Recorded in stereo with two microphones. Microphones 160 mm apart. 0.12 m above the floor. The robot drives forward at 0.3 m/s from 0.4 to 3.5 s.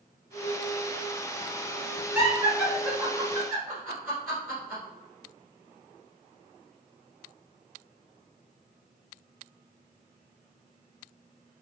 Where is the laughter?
15° right (ahead or behind), 1.2 m.